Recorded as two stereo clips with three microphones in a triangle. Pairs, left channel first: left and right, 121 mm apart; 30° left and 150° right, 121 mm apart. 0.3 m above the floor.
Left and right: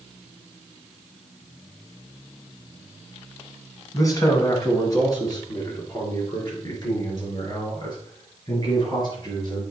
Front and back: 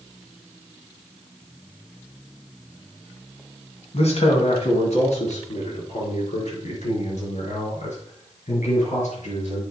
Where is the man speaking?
30° left, 2.5 m; by 9.6 s 40° left, 5.5 m.